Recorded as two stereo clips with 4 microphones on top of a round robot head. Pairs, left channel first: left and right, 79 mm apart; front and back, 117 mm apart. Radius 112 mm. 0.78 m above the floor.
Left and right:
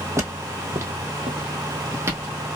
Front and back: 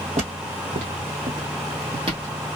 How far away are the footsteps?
About 1.6 m.